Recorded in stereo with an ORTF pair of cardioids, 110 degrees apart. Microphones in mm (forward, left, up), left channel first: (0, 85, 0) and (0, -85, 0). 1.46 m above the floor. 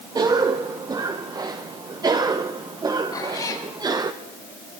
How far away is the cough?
About 1.0 m.